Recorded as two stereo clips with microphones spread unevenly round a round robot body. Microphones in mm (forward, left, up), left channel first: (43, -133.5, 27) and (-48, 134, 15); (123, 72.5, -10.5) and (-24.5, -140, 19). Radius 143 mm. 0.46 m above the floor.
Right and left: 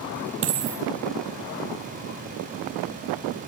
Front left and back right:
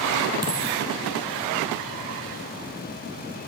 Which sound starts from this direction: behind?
A dropped coin, at 0.4 s.